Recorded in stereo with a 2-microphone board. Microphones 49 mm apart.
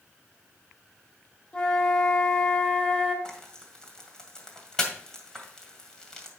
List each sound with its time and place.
1.5 s a flute: 25° left (ahead or behind), 1.7 m
3.2 s frying: 15° left (ahead or behind), 1.9 m